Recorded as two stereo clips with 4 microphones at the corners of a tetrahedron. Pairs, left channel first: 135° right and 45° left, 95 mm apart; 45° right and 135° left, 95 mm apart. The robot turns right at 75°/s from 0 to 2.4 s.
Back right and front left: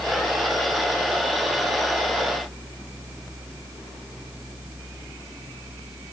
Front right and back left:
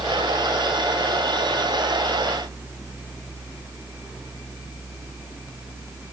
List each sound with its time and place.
Only background noise.